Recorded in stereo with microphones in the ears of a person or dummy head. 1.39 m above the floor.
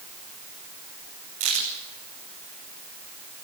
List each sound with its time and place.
1.4 s a crack: 45° right (ahead or behind), 9 m